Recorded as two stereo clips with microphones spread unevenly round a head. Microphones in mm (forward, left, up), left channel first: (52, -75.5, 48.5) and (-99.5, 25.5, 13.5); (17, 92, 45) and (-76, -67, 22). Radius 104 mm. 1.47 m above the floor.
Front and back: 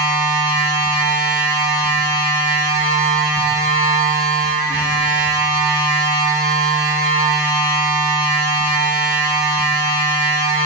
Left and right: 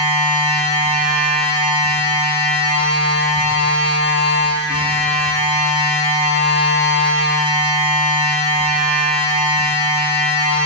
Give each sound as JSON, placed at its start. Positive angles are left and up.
{"t": 0.0, "sound": "a machine running", "azimuth_deg": 25, "distance_m": 6.5}